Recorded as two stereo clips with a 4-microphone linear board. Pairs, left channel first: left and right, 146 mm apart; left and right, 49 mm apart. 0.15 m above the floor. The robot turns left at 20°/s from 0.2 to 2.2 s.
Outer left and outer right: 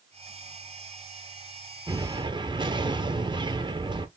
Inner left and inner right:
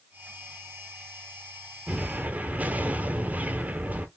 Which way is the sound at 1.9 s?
25° right (ahead or behind).